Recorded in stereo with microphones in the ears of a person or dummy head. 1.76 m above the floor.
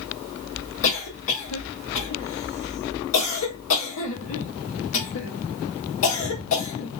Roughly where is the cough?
Left.